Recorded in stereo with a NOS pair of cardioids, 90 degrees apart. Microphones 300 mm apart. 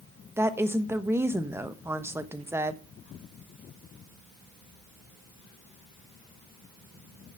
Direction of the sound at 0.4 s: 10° right.